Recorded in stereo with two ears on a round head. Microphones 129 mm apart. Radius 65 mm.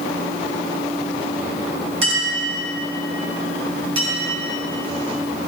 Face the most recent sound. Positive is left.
turn(degrees=-40)  # may be behind; listen again after turning